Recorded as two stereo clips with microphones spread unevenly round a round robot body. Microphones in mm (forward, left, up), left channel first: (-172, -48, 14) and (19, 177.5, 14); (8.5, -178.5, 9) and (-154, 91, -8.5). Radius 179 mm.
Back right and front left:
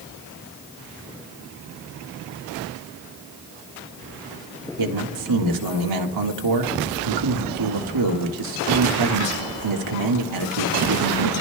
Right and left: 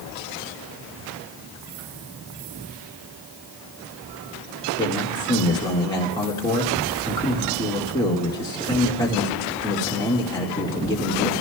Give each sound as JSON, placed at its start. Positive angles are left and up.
{"t": 4.8, "sound": "a man speaking", "azimuth_deg": 20, "distance_m": 1.7}